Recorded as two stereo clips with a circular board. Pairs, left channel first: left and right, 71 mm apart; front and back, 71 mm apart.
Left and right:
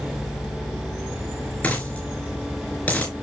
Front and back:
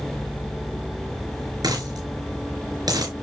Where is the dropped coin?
155° left, 4 m.